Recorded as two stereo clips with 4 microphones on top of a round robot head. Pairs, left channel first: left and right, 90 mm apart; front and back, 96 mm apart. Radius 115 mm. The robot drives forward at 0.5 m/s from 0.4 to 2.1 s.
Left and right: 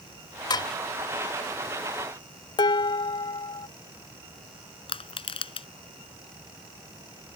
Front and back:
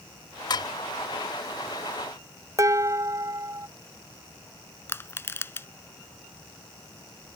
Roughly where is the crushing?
Left.